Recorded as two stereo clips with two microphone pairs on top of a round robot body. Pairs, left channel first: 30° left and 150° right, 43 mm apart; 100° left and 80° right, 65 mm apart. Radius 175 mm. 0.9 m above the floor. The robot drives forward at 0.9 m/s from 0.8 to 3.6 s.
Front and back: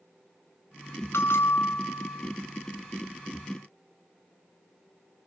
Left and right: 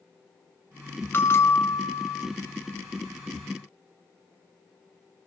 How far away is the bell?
About 1.8 m.